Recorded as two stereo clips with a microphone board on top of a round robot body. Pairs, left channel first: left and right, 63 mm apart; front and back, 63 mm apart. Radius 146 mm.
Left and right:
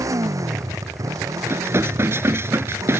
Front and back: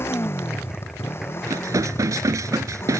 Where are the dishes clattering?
140° right.